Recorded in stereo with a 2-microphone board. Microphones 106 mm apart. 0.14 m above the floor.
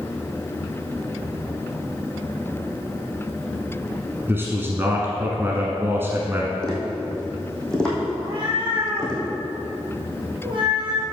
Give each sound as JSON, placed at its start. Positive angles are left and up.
{"t": 4.3, "sound": "a man speaking", "side_deg": -20, "distance_m": 1.1}
{"t": 6.6, "sound": "tapping", "side_deg": 5, "distance_m": 3.0}
{"t": 8.2, "sound": "a cat meowing", "side_deg": -50, "distance_m": 3.0}